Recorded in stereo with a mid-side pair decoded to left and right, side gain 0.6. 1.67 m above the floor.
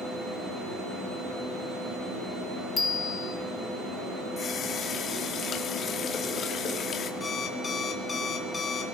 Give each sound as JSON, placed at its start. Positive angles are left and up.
{"t": 2.8, "sound": "a bicycle bell", "azimuth_deg": 25, "distance_m": 2.5}
{"t": 4.4, "sound": "a running tap", "azimuth_deg": 45, "distance_m": 2.5}
{"t": 7.2, "sound": "an alarm clock", "azimuth_deg": 25, "distance_m": 3.0}